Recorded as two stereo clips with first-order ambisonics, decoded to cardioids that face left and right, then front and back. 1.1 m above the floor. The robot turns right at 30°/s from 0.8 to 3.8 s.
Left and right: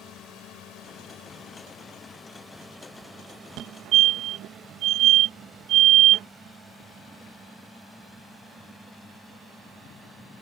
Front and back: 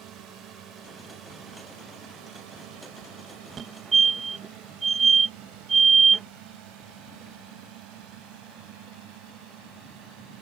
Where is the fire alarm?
120° right; by 6.3 s 115° right.